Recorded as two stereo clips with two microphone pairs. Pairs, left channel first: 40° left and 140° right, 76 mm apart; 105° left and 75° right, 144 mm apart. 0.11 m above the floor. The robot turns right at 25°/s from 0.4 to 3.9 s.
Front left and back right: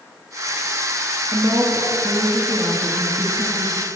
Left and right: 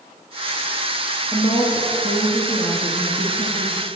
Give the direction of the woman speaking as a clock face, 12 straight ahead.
6 o'clock.